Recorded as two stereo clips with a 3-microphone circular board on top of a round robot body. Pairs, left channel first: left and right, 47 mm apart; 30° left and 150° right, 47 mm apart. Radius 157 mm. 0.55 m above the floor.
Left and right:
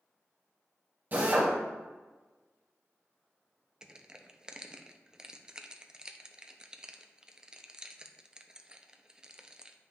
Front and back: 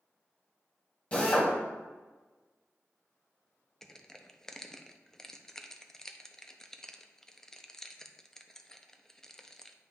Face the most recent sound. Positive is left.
turn(degrees=-40)